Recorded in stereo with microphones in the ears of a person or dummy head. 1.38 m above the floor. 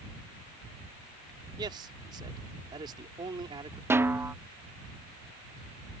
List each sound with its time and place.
1.6 s a man speaking: 25° right (ahead or behind)
3.9 s a snare drum: 15° right (ahead or behind)